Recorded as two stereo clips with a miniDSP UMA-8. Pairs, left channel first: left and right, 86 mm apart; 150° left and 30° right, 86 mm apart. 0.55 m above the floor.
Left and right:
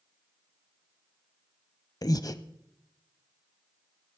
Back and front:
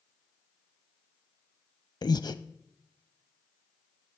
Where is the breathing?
125° left, 0.6 m.